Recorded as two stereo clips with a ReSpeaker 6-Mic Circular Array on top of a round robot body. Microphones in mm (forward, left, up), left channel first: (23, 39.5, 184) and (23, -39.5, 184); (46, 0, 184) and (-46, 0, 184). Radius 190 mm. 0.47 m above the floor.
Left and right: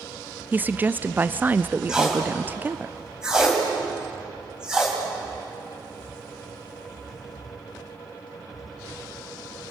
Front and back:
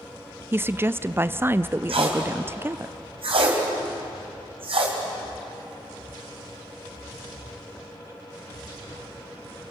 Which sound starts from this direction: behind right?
A woman speaking, at 0.5 s.